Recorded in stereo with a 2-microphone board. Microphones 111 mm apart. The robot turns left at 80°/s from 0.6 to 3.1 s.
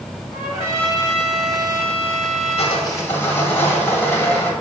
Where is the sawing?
60° left, 1.6 m; by 4.5 s 20° left, 1.6 m.